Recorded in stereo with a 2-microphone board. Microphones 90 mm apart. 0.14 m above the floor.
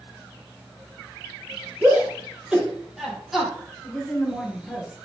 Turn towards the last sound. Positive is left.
turn(degrees=0)  # may be behind; listen again after turning